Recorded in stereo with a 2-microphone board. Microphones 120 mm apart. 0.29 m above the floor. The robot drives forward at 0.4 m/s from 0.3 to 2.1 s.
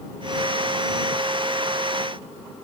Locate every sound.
Only background noise.